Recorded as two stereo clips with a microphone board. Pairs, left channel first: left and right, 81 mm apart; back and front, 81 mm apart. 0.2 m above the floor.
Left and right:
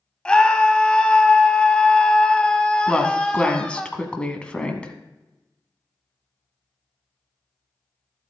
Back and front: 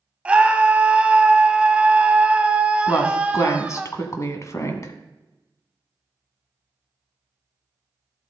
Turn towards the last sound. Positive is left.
turn(degrees=160)